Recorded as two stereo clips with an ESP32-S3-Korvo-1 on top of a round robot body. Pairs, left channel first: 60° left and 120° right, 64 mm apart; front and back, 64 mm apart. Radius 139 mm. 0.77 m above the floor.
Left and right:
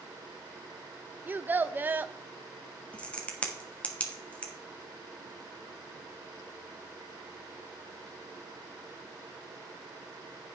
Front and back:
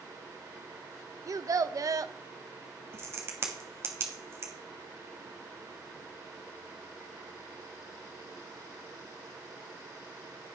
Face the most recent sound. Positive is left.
turn(degrees=130)